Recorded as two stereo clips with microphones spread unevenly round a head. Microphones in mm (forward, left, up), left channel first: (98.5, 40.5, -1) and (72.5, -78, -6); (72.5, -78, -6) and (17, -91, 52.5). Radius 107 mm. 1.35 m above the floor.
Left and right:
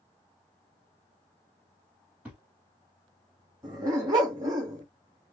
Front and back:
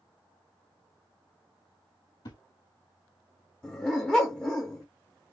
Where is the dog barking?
145° right, 0.8 m.